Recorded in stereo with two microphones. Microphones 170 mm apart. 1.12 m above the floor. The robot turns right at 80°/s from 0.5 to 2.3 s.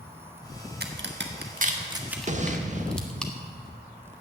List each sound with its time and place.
0.8 s a crack: 65° right (ahead or behind), 1.4 m; by 3.3 s 5° left (ahead or behind), 1.4 m
2.3 s an explosion: 40° right (ahead or behind), 0.9 m